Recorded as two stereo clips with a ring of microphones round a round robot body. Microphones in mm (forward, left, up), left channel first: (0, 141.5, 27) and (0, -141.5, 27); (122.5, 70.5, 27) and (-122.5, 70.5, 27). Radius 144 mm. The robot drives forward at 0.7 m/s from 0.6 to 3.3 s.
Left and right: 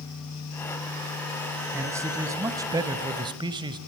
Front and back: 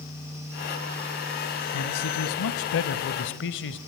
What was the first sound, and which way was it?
A man speaking, 10° right.